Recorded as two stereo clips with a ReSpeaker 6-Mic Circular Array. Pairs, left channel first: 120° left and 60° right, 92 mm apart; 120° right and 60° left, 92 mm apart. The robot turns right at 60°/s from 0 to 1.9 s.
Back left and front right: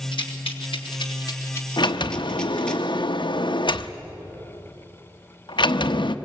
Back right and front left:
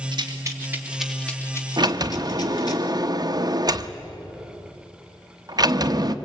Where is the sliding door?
90° left, 0.9 m; by 6.2 s 100° left, 0.9 m.